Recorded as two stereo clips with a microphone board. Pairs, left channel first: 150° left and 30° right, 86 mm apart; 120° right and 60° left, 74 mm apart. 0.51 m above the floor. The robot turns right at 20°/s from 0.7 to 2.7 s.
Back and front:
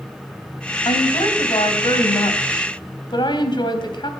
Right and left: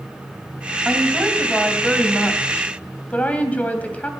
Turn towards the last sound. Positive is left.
turn(degrees=170)